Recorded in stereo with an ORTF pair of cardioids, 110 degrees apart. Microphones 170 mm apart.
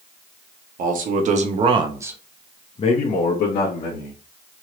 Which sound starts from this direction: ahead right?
A man speaking, at 0.8 s.